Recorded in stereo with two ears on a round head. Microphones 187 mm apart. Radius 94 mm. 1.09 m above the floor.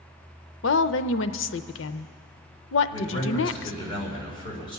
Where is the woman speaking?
65° left (ahead or behind), 0.6 m.